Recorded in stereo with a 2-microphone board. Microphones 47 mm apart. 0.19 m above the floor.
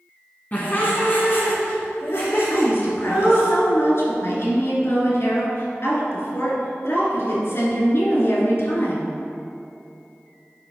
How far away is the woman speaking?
About 2 m.